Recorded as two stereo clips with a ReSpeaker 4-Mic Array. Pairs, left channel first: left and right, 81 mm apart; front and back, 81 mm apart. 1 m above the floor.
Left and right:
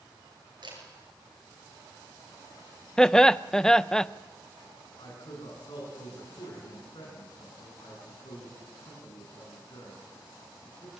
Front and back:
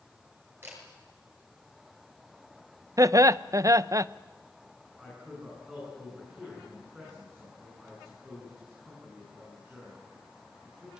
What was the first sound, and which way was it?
A camera shutter, 115° right.